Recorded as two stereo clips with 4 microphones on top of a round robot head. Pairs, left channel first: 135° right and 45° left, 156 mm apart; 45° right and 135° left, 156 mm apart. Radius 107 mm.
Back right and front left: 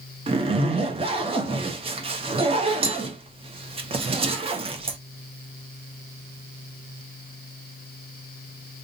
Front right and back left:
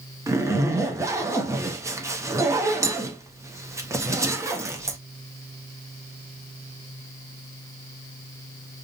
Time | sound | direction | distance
0.3 | a zipper | 75° left | 0.7 m